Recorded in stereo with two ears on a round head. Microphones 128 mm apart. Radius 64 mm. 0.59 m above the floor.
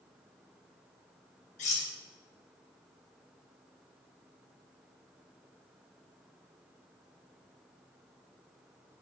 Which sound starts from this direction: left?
Cutlery clinking, at 1.6 s.